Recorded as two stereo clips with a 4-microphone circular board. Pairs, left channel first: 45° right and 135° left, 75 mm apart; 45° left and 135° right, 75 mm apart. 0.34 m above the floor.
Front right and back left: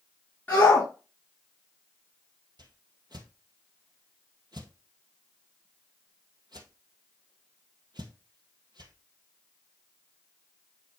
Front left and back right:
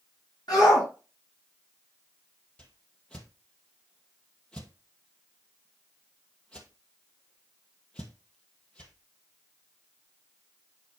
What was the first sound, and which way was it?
A shout, 20° left.